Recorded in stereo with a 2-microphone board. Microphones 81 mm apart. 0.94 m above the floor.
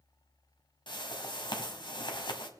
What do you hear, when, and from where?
0.9 s a whoosh: 65° left (ahead or behind), 1.5 m